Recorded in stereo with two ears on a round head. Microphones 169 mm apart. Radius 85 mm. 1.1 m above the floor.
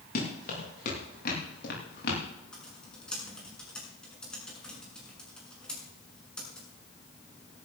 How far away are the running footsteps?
About 9 m.